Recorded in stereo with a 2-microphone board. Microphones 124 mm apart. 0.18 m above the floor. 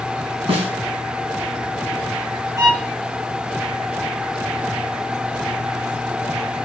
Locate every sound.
0.5 s a snare drum: 50° right (ahead or behind), 1.6 m
2.6 s a violin: 30° right (ahead or behind), 1.1 m